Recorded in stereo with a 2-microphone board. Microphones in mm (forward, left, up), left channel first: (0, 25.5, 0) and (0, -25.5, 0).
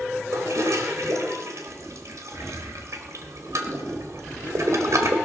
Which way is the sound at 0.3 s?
65° right (ahead or behind).